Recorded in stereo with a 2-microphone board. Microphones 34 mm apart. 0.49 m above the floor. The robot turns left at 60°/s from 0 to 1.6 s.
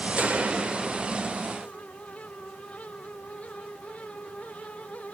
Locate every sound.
0.2 s a gunshot: 115° right, 1.5 m; by 1.4 s 175° left, 1.5 m